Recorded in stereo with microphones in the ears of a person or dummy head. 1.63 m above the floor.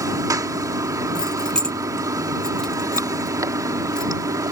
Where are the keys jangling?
5° left (ahead or behind).